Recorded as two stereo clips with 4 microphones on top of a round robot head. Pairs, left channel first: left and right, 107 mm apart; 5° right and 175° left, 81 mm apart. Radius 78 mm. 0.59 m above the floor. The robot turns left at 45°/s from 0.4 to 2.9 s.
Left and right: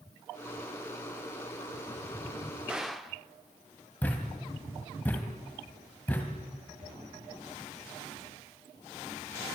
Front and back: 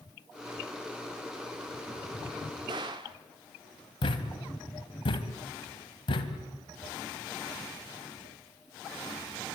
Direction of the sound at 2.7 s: 170° right.